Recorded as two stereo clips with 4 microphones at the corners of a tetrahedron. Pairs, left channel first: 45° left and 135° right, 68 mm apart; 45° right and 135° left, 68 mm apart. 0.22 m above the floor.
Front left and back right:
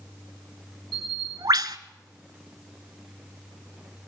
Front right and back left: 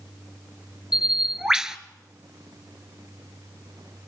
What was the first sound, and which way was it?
A bird, 145° right.